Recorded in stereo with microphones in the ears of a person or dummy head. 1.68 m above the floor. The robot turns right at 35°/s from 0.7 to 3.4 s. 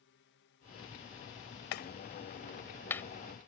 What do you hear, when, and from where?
0.0 s a drone: 110° left; by 3.5 s 155° right
1.7 s a clap: 55° left (ahead or behind); by 3.0 s 10° left (ahead or behind)